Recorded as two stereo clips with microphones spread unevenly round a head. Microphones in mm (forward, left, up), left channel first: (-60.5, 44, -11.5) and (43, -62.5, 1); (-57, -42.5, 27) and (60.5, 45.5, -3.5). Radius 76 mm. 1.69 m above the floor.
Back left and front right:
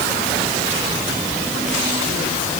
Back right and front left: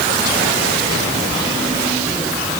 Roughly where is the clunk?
I don't hear a clunk.